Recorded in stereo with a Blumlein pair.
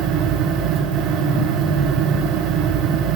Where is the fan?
30° right, 0.9 m.